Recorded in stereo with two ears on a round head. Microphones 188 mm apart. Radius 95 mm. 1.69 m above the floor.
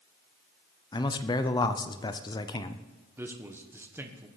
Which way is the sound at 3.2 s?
10° right (ahead or behind).